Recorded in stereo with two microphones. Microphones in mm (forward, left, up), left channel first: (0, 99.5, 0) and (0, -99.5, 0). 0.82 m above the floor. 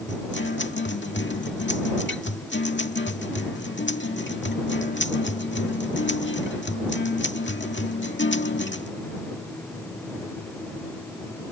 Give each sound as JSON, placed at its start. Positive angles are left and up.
{"t": 0.1, "sound": "a guitar", "side_deg": 65}